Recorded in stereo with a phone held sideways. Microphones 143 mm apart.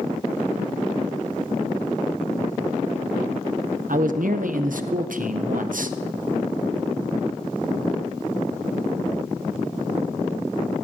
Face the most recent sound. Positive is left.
turn(degrees=-70)  # may be behind; listen again after turning